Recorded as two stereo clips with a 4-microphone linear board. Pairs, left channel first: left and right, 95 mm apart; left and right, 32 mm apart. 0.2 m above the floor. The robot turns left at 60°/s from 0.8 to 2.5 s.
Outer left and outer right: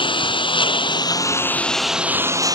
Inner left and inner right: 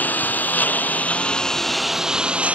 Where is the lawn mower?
65° left; by 2.5 s 40° right.